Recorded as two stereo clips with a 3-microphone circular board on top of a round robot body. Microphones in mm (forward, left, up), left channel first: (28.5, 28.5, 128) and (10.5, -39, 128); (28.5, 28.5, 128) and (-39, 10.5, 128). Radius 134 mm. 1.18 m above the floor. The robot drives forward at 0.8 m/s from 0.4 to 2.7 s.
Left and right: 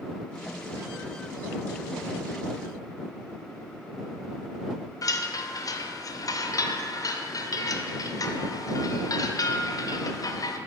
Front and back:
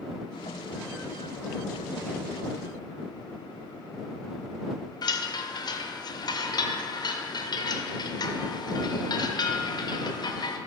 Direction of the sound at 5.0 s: 35° left.